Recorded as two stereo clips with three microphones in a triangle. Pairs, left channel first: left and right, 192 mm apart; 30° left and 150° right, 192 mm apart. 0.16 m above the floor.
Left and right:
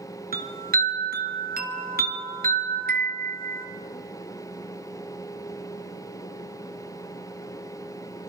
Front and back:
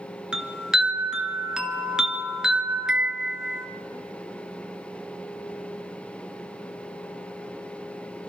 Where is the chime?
65° right, 1.9 m.